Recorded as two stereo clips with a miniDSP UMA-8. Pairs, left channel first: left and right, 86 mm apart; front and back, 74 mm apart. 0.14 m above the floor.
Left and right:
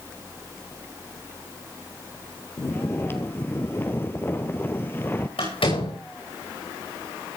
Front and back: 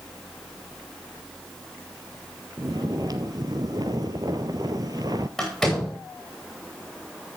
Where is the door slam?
90° left, 9.5 m.